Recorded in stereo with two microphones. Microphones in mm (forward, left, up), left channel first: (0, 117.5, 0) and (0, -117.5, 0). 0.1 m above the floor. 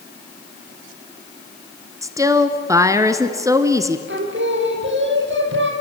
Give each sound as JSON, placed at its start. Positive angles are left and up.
{"t": 2.0, "sound": "a woman speaking", "side_deg": -15, "distance_m": 1.1}
{"t": 4.1, "sound": "singing", "side_deg": -55, "distance_m": 3.0}